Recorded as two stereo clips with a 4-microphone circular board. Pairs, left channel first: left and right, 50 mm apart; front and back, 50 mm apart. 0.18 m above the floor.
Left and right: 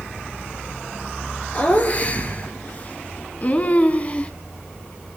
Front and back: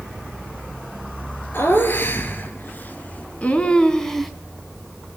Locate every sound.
1.5 s laughter: 35° left, 4.5 m; by 4.3 s 85° left, 1.8 m